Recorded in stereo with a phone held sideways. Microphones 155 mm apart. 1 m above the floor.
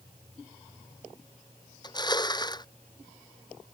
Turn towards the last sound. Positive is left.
turn(degrees=30)  # may be behind; listen again after turning